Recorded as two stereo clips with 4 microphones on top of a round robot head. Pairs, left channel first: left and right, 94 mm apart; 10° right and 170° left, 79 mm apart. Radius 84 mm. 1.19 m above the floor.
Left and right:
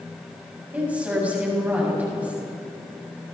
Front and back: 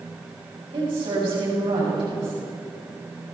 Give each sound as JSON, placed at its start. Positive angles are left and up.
{"t": 0.7, "sound": "a woman speaking", "azimuth_deg": -165, "distance_m": 7.0}